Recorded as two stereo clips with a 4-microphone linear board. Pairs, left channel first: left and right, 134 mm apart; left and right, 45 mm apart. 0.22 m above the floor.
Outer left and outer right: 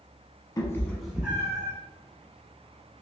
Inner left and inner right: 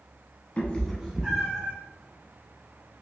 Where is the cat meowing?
30° left (ahead or behind), 0.7 m; by 1.7 s 25° right (ahead or behind), 1.1 m.